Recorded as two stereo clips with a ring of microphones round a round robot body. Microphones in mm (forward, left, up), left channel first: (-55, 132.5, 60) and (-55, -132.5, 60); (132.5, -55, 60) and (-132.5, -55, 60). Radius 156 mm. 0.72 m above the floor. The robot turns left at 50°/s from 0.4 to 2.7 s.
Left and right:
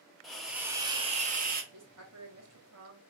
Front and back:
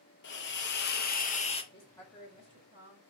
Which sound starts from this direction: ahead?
A hiss, at 0.2 s.